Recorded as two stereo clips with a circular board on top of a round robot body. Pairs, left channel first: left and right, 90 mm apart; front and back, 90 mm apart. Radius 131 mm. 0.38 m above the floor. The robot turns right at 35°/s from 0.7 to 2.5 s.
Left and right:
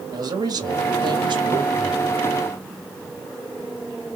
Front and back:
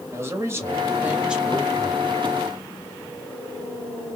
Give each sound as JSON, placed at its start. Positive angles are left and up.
{"t": 0.1, "sound": "a man speaking", "azimuth_deg": -125, "distance_m": 1.9}